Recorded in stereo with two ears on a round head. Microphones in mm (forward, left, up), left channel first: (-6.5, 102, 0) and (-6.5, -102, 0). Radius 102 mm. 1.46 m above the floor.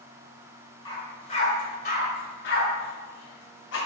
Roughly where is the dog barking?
Centre.